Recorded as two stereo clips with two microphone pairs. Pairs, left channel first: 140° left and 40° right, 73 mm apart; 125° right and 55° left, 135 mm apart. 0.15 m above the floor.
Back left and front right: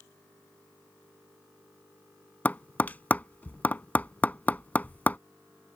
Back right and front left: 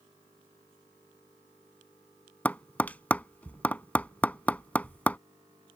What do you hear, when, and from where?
2.5 s tapping: 170° left